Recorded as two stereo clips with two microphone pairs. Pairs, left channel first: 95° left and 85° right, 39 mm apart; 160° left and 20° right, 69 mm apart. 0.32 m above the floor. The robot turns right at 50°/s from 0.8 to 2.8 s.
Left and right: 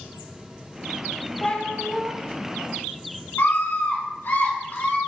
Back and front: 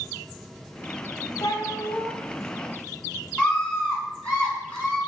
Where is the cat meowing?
165° left, 1.0 m; by 2.1 s 160° right, 1.0 m.